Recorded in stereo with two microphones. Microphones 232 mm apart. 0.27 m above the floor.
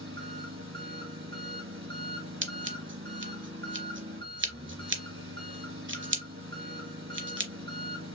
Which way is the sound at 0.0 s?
60° right (ahead or behind).